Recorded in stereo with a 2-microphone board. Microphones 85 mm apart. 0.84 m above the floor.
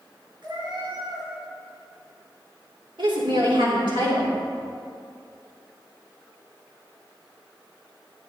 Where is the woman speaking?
75° right (ahead or behind), 3 m.